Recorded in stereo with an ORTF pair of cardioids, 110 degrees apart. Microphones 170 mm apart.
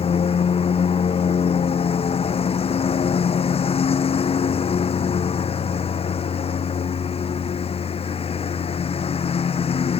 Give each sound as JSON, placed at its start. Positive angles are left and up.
{"t": 0.0, "sound": "a lawn mower", "azimuth_deg": 35}